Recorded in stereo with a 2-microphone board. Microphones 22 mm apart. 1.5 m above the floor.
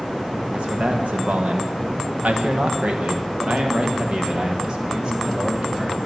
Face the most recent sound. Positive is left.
turn(degrees=-40)  # may be behind; listen again after turning